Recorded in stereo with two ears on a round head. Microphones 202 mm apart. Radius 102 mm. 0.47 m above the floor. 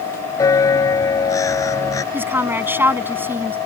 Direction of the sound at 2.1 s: 10° right (ahead or behind).